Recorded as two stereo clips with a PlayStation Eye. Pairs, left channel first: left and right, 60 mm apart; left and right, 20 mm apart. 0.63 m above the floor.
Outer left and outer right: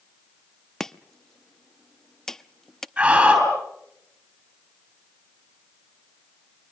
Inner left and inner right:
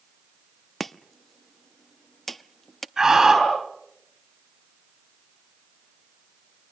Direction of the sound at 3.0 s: 15° right (ahead or behind).